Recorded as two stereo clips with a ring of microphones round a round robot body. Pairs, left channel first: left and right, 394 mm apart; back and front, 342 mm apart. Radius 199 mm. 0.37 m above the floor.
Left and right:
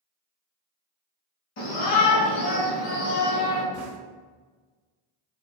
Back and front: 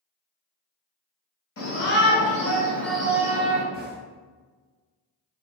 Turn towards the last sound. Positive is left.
turn(degrees=-50)